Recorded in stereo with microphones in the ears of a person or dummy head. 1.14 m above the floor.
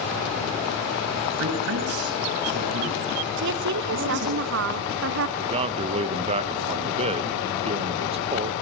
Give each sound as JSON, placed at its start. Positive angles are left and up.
{"t": 1.4, "sound": "a man speaking", "side_deg": -60, "distance_m": 7.0}
{"t": 3.4, "sound": "a woman speaking", "side_deg": -60, "distance_m": 1.3}
{"t": 5.4, "sound": "a man speaking", "side_deg": -35, "distance_m": 1.0}